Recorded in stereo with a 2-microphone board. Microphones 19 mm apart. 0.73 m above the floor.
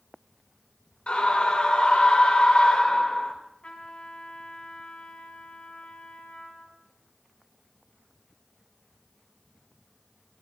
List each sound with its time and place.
1.1 s a scream: 60° left (ahead or behind), 3 m
3.6 s a trumpet: 55° left (ahead or behind), 3.5 m